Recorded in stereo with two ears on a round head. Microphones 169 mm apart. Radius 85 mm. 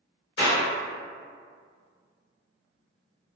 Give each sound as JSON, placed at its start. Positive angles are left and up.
{"t": 0.4, "sound": "a clap", "side_deg": 65, "distance_m": 1.3}